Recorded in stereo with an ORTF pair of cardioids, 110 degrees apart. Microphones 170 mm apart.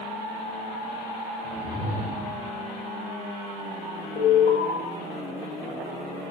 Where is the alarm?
65° left, 7.5 m.